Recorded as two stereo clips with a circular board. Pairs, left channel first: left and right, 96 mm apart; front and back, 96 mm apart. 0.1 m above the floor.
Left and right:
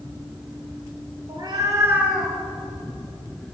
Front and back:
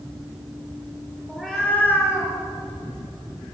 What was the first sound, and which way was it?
A cat meowing, 95° right.